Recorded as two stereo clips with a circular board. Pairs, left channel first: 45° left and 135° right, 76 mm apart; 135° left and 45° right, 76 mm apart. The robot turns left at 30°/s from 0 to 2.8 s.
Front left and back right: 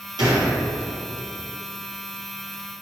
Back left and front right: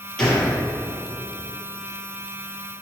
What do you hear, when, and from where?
0.2 s a gunshot: 145° right, 2.5 m; by 0.6 s 155° right, 2.5 m